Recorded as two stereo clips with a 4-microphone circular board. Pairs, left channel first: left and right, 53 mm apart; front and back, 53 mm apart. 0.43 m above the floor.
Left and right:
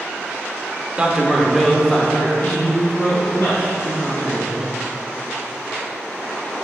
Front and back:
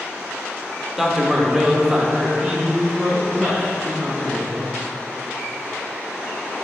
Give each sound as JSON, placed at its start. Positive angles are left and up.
{"t": 1.0, "sound": "a man speaking", "azimuth_deg": -110, "distance_m": 0.8}